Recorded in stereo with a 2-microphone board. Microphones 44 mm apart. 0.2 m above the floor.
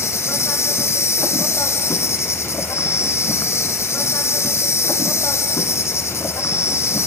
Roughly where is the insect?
Left.